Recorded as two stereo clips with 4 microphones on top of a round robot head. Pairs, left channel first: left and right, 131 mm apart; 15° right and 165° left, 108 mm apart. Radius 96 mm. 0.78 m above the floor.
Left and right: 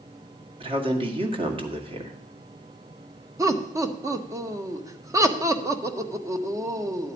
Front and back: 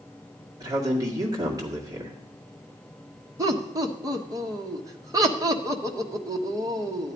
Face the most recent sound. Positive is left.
turn(degrees=-145)